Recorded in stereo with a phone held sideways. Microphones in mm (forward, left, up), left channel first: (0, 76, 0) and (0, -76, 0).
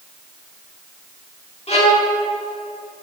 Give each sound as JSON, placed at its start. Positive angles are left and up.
{"t": 1.7, "sound": "a violin", "side_deg": 40, "distance_m": 1.7}